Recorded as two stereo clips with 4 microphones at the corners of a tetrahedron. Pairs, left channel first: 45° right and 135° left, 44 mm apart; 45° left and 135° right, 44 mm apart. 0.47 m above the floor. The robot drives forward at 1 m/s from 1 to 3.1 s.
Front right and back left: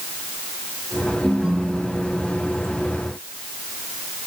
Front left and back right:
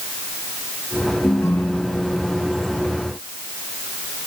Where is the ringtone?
55° left; by 2.7 s 90° left.